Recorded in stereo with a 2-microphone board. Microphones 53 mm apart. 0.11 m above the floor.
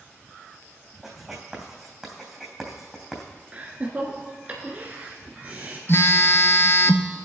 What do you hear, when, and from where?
1.0 s writing: 5° right (ahead or behind), 2.5 m
3.5 s laughter: 30° right (ahead or behind), 1.2 m
5.9 s a phone buzzing: 50° left (ahead or behind), 0.6 m